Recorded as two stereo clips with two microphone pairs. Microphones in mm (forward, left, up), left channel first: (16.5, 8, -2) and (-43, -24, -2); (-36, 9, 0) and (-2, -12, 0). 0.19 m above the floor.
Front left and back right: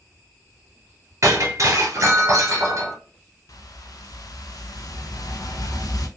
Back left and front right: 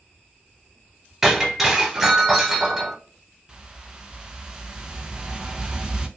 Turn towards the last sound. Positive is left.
turn(degrees=45)